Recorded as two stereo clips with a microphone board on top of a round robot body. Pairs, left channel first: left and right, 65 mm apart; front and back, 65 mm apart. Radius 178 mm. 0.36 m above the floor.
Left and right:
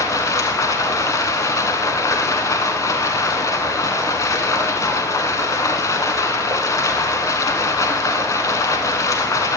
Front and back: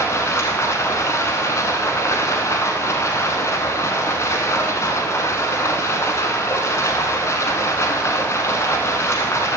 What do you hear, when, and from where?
0.0 s running water: 55° left, 0.8 m